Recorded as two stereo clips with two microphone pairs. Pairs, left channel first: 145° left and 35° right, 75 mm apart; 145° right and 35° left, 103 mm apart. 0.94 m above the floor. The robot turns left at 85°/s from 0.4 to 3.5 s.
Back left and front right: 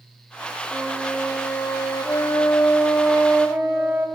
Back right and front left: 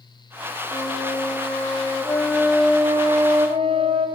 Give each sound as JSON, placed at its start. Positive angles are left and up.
{"t": 0.7, "sound": "a flute", "azimuth_deg": -95, "distance_m": 0.7}